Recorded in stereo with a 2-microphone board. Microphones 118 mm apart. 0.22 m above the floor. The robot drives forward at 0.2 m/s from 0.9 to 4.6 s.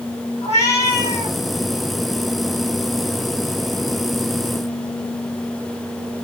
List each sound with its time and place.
0.4 s a cat meowing: 75° left (ahead or behind), 2.5 m